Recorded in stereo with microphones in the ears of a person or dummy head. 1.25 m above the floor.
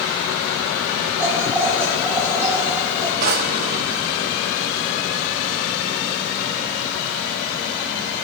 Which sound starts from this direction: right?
A drawer, at 3.2 s.